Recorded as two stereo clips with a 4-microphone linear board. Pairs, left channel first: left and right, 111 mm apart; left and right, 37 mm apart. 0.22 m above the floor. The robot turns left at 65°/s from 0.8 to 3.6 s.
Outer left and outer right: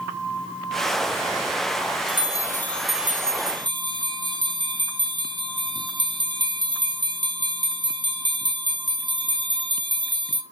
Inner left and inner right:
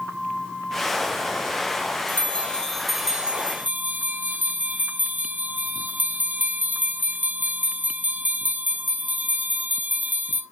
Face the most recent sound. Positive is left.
turn(degrees=-45)